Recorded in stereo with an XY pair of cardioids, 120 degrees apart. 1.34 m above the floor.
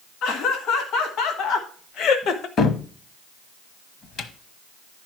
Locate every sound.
0.2 s laughter: 70° left, 2 m; by 2.5 s 60° left, 0.9 m
2.6 s a cupboard door: 55° left, 1.0 m